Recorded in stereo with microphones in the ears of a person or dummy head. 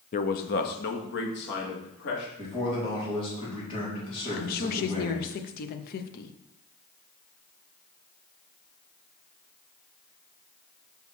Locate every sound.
0.1 s a man speaking: 35° left (ahead or behind), 0.6 m; by 2.3 s 60° left (ahead or behind), 2.5 m
2.4 s a man speaking: 25° left (ahead or behind), 3.5 m
4.4 s a woman speaking: 45° left (ahead or behind), 0.8 m